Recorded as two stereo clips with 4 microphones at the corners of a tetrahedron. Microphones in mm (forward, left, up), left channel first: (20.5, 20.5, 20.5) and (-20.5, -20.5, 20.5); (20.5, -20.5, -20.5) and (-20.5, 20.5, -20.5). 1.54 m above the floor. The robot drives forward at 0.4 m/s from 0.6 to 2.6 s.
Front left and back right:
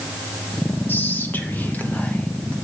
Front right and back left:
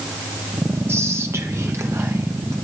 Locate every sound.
0.9 s whispering: 95° left, 2.5 m; by 2.5 s 110° left, 2.5 m